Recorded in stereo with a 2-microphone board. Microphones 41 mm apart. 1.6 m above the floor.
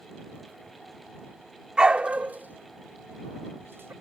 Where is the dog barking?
20° right (ahead or behind); by 3.9 s 70° right (ahead or behind).